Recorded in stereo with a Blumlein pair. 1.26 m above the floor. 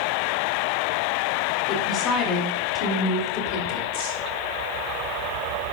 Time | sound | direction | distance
1.7 | a woman speaking | 30° left | 4.5 m